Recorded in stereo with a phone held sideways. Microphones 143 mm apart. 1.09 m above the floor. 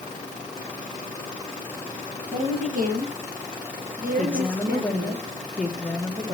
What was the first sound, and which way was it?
A woman speaking, 60° right (ahead or behind).